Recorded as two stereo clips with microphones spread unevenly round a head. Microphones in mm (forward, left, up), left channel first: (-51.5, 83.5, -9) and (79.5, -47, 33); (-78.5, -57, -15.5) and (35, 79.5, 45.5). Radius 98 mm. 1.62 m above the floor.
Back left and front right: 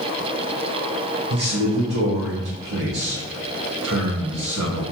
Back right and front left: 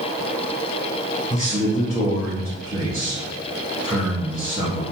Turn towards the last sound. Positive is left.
turn(degrees=-30)